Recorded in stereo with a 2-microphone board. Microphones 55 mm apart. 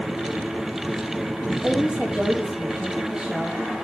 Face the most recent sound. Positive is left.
turn(degrees=-15)  # may be behind; listen again after turning